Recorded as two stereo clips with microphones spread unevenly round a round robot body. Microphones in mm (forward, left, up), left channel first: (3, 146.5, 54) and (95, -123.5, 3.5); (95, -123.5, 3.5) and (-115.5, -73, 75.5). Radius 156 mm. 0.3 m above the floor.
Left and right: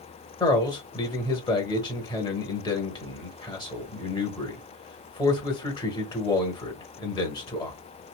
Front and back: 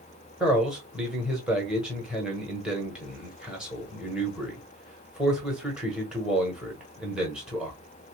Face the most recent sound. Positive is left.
turn(degrees=30)